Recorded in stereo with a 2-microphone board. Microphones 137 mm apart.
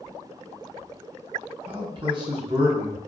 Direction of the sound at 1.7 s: 40° right (ahead or behind).